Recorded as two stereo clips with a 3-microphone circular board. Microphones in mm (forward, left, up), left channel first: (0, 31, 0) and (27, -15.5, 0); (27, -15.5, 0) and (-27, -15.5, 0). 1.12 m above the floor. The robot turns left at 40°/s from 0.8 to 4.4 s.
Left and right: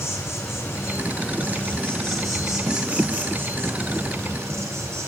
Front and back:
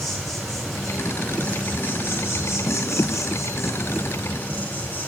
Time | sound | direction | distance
0.0 | an insect | 90° left | 4 m